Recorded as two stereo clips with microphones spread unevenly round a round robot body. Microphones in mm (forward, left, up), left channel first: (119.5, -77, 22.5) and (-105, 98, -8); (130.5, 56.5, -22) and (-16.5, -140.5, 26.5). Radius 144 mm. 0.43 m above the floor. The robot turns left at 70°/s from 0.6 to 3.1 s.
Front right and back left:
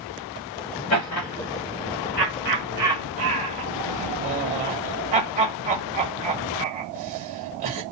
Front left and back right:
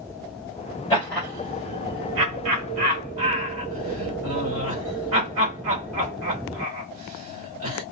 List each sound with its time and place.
0.9 s laughter: 10° right, 1.8 m; by 7.8 s 165° right, 1.8 m